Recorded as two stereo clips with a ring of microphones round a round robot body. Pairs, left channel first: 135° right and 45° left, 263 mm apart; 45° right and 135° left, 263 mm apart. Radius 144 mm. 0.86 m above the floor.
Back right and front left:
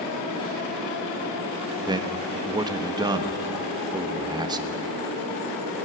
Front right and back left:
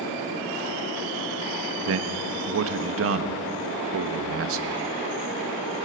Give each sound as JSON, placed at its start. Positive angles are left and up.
{"t": 1.9, "sound": "a man speaking", "azimuth_deg": 115, "distance_m": 1.3}